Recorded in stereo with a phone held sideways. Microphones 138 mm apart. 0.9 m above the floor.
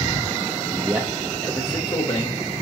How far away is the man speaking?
About 0.5 m.